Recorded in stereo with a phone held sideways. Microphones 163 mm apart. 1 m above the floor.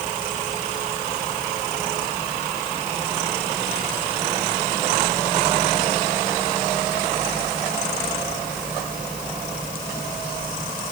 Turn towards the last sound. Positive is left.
No sound to turn to.